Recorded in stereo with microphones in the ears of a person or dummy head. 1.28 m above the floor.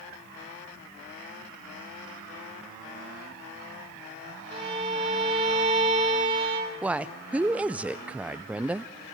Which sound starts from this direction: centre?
A woman speaking, at 6.8 s.